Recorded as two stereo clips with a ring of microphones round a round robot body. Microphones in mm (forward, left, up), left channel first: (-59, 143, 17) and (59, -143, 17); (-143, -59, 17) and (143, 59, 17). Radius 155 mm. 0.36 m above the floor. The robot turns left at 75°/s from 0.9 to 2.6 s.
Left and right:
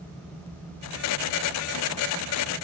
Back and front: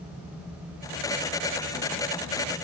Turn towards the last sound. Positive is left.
No sound to turn to.